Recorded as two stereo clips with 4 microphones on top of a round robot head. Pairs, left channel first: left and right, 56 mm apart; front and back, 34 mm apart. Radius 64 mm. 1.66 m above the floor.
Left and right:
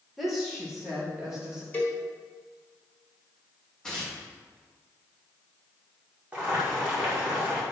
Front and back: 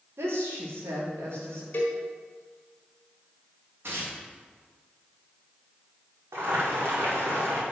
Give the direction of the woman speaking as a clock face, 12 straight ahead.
6 o'clock.